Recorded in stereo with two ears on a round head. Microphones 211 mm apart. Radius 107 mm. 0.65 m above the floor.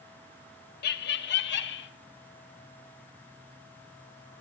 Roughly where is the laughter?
Left.